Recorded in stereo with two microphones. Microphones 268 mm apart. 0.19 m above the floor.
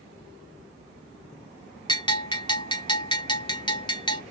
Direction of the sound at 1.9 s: 20° left (ahead or behind).